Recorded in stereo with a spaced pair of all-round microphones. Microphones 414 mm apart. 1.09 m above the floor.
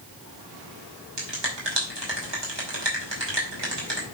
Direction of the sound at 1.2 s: 70° right (ahead or behind).